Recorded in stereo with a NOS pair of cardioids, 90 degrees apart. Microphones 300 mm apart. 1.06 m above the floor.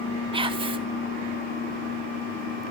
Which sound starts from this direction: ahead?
Whispering, at 0.3 s.